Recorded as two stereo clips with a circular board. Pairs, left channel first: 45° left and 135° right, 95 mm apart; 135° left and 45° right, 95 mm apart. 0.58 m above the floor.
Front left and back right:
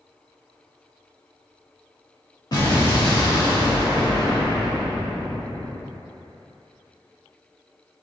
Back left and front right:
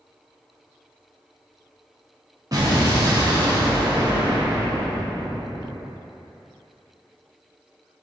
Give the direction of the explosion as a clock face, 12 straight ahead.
12 o'clock.